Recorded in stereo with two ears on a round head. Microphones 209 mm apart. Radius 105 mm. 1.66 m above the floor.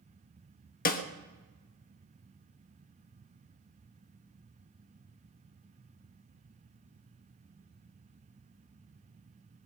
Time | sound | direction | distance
0.8 | a snare drum | 40° left (ahead or behind) | 1.3 m